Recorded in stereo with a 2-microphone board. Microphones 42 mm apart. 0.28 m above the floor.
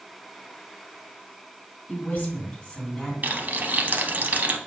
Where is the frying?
45° right (ahead or behind), 0.5 m.